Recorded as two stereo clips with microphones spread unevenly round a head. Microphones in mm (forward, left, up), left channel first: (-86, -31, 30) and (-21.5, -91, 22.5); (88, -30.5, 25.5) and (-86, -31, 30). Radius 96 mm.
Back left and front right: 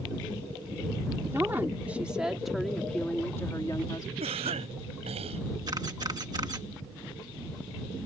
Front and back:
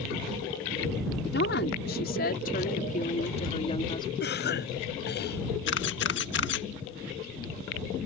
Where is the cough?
30° right.